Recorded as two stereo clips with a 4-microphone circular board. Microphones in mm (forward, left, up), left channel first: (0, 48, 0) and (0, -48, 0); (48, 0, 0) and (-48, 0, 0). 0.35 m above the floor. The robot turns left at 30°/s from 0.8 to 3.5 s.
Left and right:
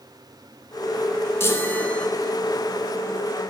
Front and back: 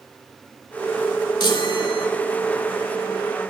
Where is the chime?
30° left, 0.6 m; by 2.1 s 10° left, 0.6 m.